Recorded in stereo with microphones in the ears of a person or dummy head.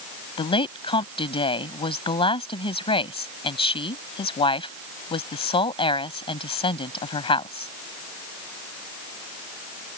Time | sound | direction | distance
0.4 | a woman speaking | 25° left (ahead or behind) | ?